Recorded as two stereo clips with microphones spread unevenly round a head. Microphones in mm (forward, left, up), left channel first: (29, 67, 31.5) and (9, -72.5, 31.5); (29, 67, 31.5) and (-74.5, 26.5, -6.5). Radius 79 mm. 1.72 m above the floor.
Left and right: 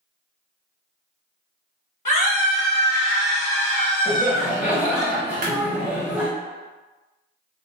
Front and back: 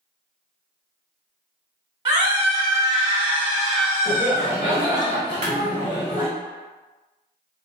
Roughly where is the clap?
Right.